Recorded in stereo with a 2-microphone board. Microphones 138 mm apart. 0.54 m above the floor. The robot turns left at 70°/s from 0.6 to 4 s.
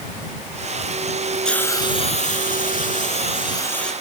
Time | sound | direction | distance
1.4 | a hiss | 175° left | ?